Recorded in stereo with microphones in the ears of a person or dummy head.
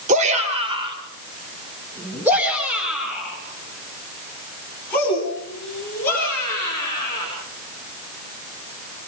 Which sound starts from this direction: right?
A shout, at 0.1 s.